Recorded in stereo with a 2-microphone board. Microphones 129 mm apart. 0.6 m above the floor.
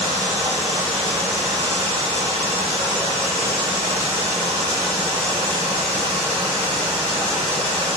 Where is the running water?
55° right (ahead or behind), 4 m.